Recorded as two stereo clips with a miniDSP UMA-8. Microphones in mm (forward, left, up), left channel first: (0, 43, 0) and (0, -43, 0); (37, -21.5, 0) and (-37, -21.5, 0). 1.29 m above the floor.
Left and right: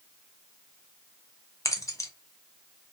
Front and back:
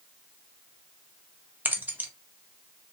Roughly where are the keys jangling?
Behind left.